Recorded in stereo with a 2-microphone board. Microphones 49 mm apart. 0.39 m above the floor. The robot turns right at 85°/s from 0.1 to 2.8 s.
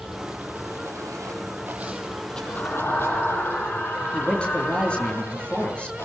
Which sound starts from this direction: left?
A man speaking, at 4.1 s.